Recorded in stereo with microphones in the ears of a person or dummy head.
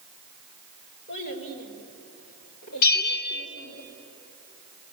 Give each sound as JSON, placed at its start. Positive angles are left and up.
{"t": 1.1, "sound": "a child speaking", "side_deg": 50, "distance_m": 4.5}
{"t": 2.8, "sound": "a bell", "side_deg": 80, "distance_m": 3.0}